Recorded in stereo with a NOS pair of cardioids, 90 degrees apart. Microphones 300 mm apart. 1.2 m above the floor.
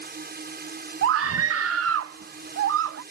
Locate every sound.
0.0 s a drone: 35° right
1.0 s a scream: 50° right